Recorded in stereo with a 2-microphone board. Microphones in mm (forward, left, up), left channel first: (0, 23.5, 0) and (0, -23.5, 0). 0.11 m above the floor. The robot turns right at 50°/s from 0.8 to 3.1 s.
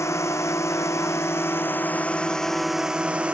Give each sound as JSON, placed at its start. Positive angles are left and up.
{"t": 0.0, "sound": "a drone", "azimuth_deg": 85}